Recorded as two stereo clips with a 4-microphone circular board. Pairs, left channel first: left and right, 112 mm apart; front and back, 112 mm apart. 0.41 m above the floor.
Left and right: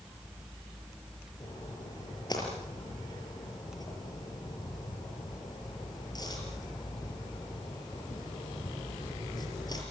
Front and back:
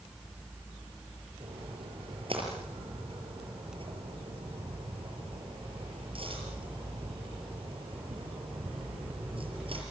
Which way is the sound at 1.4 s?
145° left.